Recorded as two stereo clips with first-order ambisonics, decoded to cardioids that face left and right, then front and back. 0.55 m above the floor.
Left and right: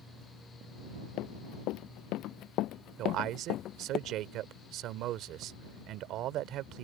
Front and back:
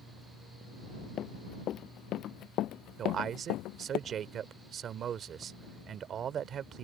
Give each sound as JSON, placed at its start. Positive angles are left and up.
{"t": 1.2, "sound": "running footsteps", "azimuth_deg": 55}
{"t": 3.0, "sound": "a man speaking", "azimuth_deg": -125}